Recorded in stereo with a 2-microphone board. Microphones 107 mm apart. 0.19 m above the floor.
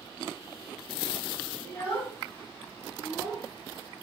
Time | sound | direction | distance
1.6 | a child speaking | 30° left (ahead or behind) | 2.0 m